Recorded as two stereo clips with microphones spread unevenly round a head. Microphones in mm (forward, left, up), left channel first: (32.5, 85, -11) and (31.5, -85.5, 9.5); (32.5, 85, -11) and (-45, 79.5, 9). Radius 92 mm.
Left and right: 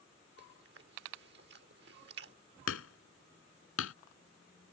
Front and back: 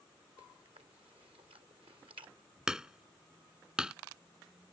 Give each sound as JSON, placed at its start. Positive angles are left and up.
{"t": 0.4, "sound": "chewing", "azimuth_deg": -125}
{"t": 2.7, "sound": "hammering", "azimuth_deg": 110}